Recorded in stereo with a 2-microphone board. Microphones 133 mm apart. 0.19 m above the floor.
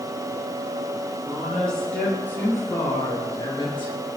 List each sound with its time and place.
1.2 s a woman speaking: centre (ahead or behind), 4.5 m; by 4.0 s 45° left (ahead or behind), 3.5 m